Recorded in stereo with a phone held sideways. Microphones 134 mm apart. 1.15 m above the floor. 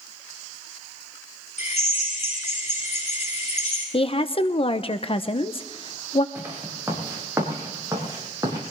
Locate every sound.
1.6 s a drill: 60° left (ahead or behind), 9 m
3.9 s a woman speaking: 45° left (ahead or behind), 0.8 m
6.3 s footsteps: 15° right (ahead or behind), 6 m; by 8.6 s 25° right (ahead or behind), 7.5 m